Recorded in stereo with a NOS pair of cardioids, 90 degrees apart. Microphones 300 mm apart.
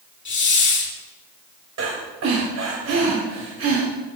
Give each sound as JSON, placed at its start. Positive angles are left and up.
{"t": 0.2, "sound": "a hiss", "azimuth_deg": 35, "distance_m": 3.5}
{"t": 1.8, "sound": "breathing", "azimuth_deg": -60, "distance_m": 3.5}